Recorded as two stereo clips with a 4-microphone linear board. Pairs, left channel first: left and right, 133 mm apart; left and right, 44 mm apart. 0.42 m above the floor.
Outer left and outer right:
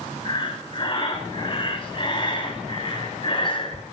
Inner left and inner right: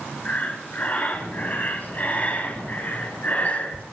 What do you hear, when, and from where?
0.2 s breathing: 40° left (ahead or behind), 1.1 m